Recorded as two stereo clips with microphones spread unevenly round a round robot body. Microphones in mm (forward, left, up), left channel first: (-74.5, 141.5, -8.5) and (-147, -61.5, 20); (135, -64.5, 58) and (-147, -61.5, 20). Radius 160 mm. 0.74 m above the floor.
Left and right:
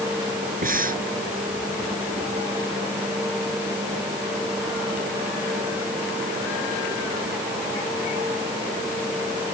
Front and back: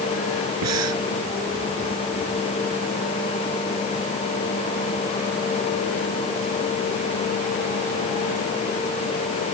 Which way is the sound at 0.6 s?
155° right.